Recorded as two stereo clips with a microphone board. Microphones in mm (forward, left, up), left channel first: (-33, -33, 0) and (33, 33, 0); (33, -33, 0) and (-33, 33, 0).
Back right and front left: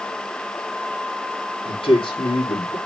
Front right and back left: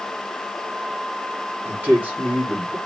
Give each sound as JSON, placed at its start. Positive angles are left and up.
{"t": 1.6, "sound": "a man speaking", "azimuth_deg": -155, "distance_m": 3.0}